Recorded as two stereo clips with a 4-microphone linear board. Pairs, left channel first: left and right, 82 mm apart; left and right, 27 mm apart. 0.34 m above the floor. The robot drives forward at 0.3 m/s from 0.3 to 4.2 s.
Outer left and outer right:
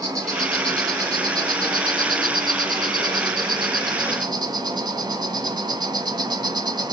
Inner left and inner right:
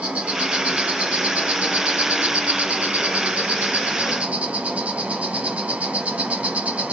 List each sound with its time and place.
0.0 s an insect: 50° right (ahead or behind), 1.3 m; by 7.0 s 60° right (ahead or behind), 1.2 m